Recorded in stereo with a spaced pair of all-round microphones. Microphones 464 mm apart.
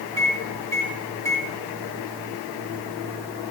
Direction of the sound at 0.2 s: 5° left (ahead or behind).